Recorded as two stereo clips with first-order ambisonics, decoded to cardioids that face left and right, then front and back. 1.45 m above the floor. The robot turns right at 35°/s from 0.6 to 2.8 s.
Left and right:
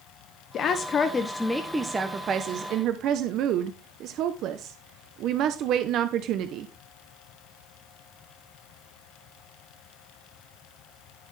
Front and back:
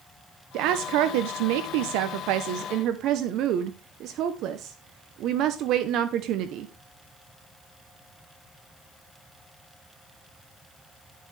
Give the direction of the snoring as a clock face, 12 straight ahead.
No snoring in this recording.